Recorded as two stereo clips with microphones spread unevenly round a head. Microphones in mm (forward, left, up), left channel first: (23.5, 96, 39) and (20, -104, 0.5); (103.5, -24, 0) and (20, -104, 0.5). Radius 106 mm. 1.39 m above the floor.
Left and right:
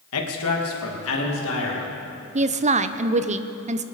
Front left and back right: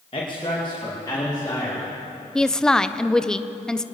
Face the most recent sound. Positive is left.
turn(degrees=-40)